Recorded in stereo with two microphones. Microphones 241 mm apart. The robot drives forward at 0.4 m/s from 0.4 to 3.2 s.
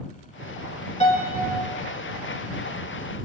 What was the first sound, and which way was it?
A piano, 25° left (ahead or behind).